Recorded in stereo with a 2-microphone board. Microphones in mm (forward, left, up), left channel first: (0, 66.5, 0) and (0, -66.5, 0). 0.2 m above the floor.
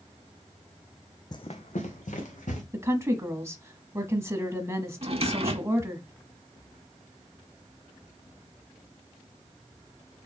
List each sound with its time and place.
1.3 s running footsteps: 35° left (ahead or behind), 0.6 m; by 2.6 s 85° left, 2.5 m
2.7 s a woman speaking: 20° right (ahead or behind), 1.1 m
5.0 s a drawer: 50° right (ahead or behind), 0.5 m